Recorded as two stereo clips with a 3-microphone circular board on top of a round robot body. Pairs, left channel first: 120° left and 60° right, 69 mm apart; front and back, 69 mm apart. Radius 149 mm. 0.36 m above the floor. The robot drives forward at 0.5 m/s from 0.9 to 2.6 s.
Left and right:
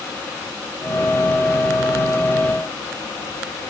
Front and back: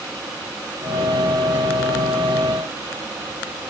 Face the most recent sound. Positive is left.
No sound to turn to.